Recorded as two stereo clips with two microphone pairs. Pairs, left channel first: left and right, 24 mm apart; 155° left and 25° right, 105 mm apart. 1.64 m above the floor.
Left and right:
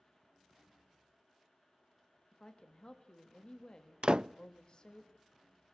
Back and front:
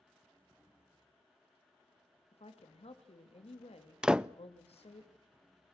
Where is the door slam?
105° right, 0.6 m.